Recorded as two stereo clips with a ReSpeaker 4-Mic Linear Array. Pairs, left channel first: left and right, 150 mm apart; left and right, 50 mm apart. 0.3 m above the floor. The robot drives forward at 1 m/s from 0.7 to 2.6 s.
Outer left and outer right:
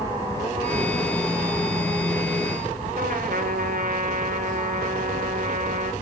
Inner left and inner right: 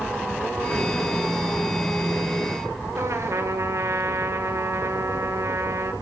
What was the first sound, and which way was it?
A trumpet, 90° right.